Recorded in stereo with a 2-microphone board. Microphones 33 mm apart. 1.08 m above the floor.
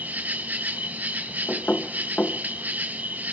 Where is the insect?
65° right (ahead or behind), 1.8 m.